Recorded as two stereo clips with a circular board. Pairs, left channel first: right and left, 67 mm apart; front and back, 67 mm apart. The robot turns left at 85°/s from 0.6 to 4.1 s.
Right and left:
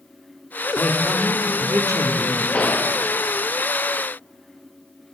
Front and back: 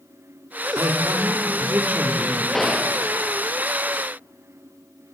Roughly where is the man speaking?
Behind right.